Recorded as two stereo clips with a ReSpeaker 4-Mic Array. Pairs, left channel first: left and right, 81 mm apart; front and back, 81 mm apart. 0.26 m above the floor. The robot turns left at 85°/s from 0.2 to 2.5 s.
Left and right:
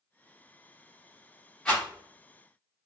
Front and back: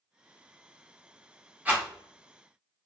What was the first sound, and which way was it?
A rattle, 150° left.